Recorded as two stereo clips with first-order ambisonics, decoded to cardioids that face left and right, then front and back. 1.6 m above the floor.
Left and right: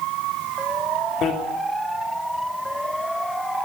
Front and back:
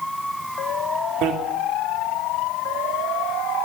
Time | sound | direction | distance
1.2 | a bicycle bell | 145° left | 3 m